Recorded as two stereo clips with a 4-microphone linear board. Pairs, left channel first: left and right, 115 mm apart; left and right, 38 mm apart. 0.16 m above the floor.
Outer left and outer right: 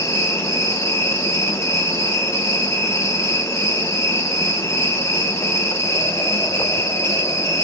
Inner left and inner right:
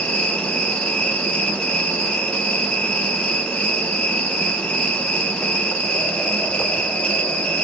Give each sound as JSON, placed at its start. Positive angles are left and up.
{"t": 0.0, "sound": "an insect", "side_deg": 25, "distance_m": 2.5}